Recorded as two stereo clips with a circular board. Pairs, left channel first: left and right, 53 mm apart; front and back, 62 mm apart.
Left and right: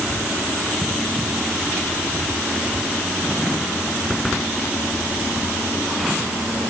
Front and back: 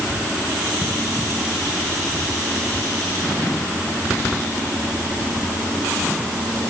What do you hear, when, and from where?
Only background noise.